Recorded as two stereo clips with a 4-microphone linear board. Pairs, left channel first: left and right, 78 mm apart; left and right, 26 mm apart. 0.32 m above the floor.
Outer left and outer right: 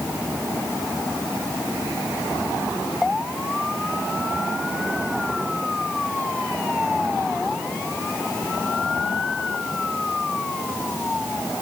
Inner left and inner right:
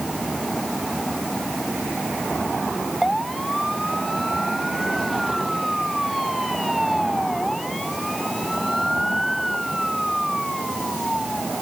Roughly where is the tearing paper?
I don't hear tearing paper.